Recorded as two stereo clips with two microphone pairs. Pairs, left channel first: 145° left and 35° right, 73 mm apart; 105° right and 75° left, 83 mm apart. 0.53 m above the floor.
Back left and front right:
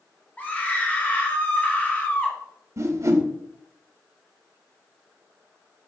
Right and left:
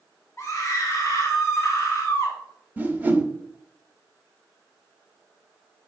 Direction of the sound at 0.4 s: 150° right.